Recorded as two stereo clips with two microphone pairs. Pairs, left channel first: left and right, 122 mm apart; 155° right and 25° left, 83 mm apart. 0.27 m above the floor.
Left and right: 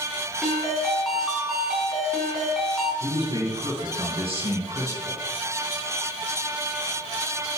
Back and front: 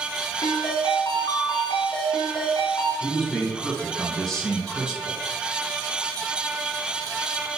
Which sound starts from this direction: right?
A man speaking, at 3.0 s.